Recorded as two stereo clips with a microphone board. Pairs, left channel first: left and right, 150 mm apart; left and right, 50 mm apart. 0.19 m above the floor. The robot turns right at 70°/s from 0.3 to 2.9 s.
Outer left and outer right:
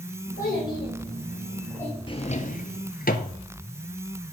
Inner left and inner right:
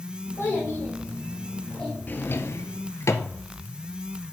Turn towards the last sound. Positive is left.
turn(degrees=80)